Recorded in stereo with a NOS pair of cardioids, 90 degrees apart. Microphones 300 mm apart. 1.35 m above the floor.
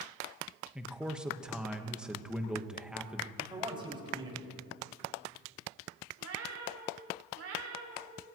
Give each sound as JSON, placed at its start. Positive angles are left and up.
{"t": 0.8, "sound": "a man speaking", "azimuth_deg": -5, "distance_m": 1.2}
{"t": 3.4, "sound": "a man speaking", "azimuth_deg": -15, "distance_m": 5.5}
{"t": 6.2, "sound": "a cat meowing", "azimuth_deg": -55, "distance_m": 3.0}